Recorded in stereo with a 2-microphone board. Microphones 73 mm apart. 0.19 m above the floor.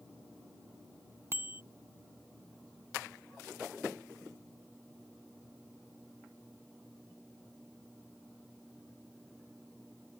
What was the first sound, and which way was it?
A bicycle bell, 35° right (ahead or behind).